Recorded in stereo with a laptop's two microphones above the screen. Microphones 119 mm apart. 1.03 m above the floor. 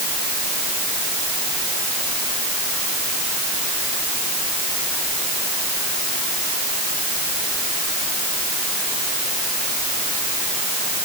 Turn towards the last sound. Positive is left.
No sound to turn to.